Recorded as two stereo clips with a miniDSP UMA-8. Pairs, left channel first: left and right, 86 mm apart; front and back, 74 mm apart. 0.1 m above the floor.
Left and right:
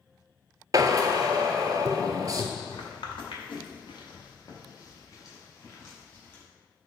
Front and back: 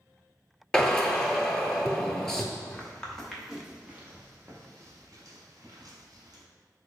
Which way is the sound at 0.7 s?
80° right.